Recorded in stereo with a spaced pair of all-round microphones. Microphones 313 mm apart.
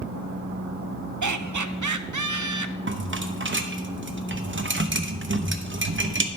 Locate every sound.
1.2 s laughter: 65° right (ahead or behind), 0.6 m
2.9 s a rattle: 40° right (ahead or behind), 0.7 m